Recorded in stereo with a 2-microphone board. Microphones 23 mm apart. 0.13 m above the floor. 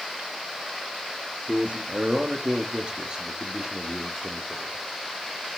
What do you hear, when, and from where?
1.5 s a man speaking: 55° right (ahead or behind), 2.5 m; by 4.8 s 15° right (ahead or behind), 3 m